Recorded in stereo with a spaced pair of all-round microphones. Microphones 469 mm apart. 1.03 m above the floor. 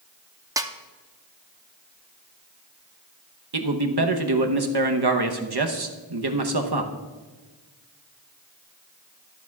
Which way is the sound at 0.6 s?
10° right (ahead or behind).